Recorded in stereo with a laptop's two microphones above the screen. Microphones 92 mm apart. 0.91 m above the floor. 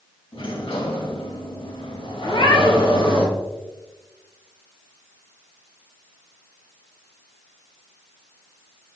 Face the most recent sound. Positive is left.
turn(degrees=70)  # may be behind; listen again after turning